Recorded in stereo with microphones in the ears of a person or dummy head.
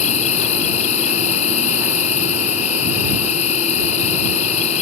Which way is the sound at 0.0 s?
30° left (ahead or behind).